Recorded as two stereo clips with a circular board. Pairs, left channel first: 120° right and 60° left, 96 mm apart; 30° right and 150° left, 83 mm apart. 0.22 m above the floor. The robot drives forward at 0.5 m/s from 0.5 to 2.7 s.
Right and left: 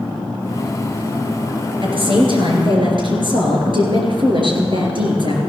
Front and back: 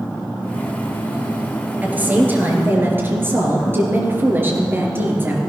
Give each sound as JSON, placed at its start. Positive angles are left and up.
{"t": 1.8, "sound": "a woman speaking", "azimuth_deg": 80, "distance_m": 3.5}